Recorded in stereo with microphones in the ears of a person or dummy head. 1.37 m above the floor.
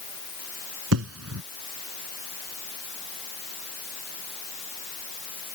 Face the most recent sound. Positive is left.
turn(degrees=-80)